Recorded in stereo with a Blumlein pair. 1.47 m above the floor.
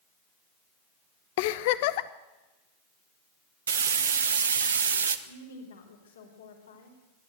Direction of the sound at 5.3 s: 65° left.